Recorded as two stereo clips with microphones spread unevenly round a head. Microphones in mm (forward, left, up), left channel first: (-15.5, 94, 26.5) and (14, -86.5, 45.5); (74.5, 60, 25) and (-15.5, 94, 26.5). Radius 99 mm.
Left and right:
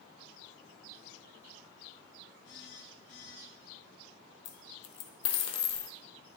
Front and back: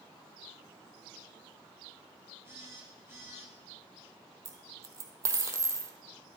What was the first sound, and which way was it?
A phone buzzing, 95° left.